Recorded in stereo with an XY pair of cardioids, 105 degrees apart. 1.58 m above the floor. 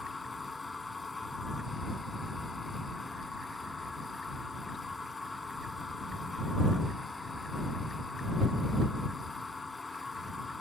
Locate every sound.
0.0 s a machine running: 20° left